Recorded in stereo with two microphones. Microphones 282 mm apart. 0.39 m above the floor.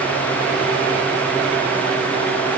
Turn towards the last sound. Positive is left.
No sound to turn to.